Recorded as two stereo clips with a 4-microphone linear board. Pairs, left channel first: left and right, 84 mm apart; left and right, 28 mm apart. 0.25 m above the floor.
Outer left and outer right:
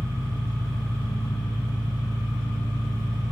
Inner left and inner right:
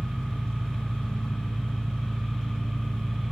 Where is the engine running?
35° left (ahead or behind), 2 m.